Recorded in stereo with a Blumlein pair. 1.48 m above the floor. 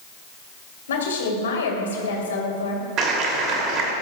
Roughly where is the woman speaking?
Ahead left.